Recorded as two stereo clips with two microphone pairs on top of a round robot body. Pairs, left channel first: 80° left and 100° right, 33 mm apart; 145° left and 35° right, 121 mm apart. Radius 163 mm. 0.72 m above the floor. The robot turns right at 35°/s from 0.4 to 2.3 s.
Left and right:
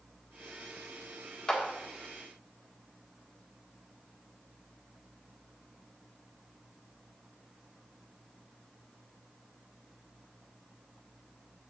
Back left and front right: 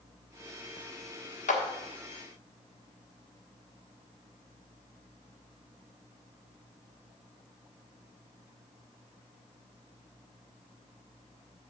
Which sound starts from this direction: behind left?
A clap, at 1.5 s.